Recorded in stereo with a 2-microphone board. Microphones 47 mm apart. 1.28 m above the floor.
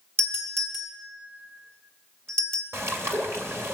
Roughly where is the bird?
Right.